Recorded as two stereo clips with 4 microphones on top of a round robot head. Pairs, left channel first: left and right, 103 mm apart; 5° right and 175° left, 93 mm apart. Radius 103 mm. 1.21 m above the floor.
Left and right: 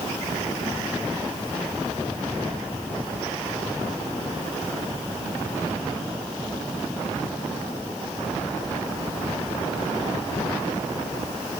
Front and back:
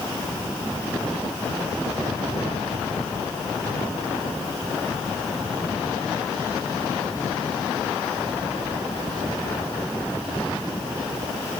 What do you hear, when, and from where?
Only background noise.